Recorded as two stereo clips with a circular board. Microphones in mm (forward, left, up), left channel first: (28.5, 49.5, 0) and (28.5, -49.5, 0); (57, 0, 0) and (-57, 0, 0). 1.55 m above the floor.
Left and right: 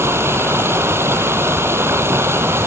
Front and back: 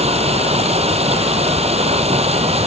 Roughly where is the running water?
Behind right.